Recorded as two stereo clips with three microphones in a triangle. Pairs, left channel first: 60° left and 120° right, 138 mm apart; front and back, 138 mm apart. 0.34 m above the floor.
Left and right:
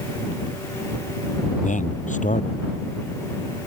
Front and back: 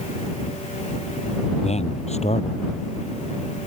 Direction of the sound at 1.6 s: 40° left.